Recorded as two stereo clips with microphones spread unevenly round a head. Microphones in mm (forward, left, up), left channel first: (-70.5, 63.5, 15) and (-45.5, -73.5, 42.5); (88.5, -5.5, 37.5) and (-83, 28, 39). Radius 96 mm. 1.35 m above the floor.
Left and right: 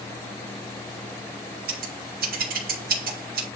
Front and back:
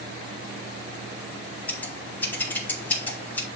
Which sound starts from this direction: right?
Scissors, at 1.7 s.